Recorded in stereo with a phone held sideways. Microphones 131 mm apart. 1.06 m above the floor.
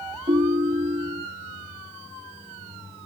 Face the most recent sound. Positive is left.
turn(degrees=-70)  # may be behind; listen again after turning